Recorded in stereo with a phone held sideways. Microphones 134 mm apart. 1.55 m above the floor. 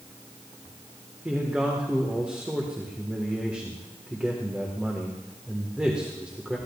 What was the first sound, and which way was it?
A man speaking, 10° right (ahead or behind).